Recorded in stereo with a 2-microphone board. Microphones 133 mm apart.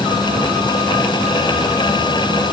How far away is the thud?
I don't hear a thud.